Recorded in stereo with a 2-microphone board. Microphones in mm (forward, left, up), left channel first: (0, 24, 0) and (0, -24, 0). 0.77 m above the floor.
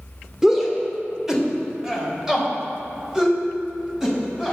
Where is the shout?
10° right (ahead or behind), 2 m.